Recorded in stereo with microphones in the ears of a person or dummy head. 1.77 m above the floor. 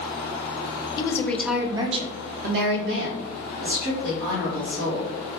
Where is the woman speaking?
25° left (ahead or behind), 0.6 m; by 5.1 s 85° right, 1.8 m.